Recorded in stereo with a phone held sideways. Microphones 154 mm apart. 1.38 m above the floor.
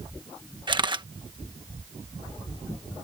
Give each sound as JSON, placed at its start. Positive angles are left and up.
{"t": 0.7, "sound": "a camera shutter", "side_deg": -30}